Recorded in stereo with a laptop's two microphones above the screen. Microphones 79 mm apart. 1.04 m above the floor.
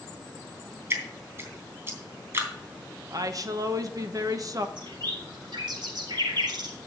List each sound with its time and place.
0.9 s dripping: 30° right (ahead or behind), 3 m
3.1 s a woman speaking: 50° right (ahead or behind), 1.0 m
4.8 s a bird: 75° right (ahead or behind), 4 m